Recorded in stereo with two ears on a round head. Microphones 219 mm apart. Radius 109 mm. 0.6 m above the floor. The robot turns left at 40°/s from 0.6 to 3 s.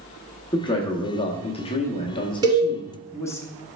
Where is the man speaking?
20° left (ahead or behind), 0.7 m; by 3.4 s 10° left (ahead or behind), 0.7 m.